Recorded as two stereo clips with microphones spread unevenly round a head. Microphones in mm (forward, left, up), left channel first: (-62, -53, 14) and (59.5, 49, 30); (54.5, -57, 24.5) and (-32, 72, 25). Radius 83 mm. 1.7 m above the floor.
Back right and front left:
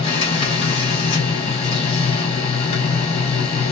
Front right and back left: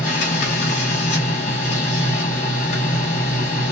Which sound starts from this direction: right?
A machine running, at 0.0 s.